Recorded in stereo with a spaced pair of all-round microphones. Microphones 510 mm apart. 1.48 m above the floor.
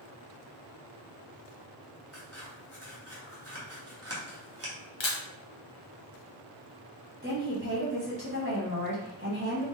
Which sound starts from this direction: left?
A camera shutter, at 5.0 s.